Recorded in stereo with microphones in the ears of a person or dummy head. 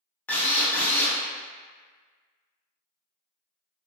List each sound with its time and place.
0.3 s a drill: 5° left (ahead or behind), 0.6 m